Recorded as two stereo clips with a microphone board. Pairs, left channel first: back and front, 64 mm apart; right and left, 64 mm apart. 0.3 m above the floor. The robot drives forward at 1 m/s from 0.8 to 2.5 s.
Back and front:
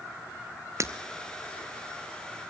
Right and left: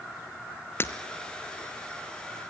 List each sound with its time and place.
0.8 s breaking glass: 40° right, 1.4 m